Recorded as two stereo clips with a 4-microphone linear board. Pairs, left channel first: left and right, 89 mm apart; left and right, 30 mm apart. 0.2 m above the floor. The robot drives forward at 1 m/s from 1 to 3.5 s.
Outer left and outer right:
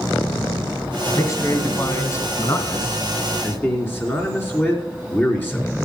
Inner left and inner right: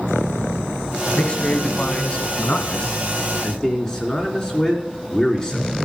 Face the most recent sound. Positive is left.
turn(degrees=20)  # may be behind; listen again after turning